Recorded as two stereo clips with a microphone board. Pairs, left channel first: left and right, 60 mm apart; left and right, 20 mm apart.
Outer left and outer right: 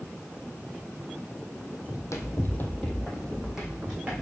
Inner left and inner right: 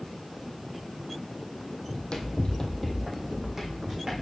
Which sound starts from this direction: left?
Running footsteps, at 1.9 s.